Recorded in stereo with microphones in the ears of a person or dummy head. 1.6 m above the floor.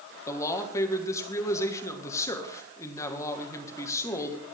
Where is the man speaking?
20° left (ahead or behind), 1.9 m.